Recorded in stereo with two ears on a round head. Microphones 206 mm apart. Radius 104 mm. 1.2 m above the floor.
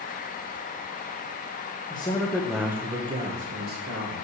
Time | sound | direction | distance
1.9 | a man speaking | 20° left (ahead or behind) | 1.3 m